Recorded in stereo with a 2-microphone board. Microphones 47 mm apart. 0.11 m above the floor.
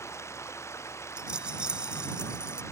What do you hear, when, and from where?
0.0 s running water: 85° left
1.2 s a rattle: 20° right (ahead or behind)